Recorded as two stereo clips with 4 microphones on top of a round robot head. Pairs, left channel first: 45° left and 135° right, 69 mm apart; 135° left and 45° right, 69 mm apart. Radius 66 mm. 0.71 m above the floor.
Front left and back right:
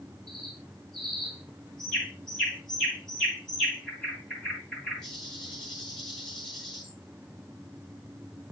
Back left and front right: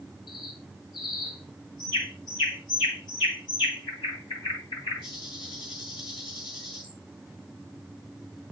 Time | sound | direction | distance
0.3 | a bird | 125° left | 9 m